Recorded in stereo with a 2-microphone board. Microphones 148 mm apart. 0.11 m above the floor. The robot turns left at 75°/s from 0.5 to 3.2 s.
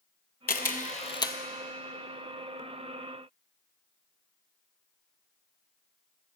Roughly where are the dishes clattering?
I don't hear dishes clattering.